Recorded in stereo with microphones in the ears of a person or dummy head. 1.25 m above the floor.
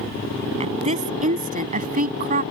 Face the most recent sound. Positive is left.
turn(degrees=-50)  # may be behind; listen again after turning